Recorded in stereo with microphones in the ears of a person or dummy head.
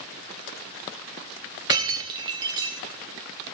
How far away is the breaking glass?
About 0.8 m.